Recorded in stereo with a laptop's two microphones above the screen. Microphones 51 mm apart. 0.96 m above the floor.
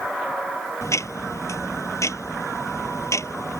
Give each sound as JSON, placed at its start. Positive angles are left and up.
{"t": 0.8, "sound": "ticking", "side_deg": 75}